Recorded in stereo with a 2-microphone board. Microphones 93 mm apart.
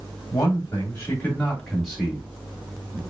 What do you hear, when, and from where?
0.3 s a man speaking: 35° left (ahead or behind), 1.5 m; by 3.0 s 25° right (ahead or behind), 1.5 m